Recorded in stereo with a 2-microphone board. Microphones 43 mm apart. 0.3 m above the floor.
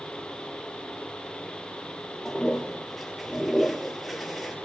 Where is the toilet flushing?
Centre (ahead or behind), 3 m.